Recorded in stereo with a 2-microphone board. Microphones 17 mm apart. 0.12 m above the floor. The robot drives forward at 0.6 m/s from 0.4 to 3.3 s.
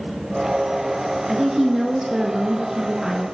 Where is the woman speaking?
15° right (ahead or behind), 1.3 m; by 3.2 s 20° right (ahead or behind), 1.2 m.